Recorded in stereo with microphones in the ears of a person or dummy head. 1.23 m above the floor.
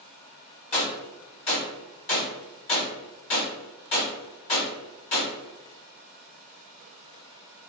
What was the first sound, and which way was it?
A gunshot, 35° left (ahead or behind).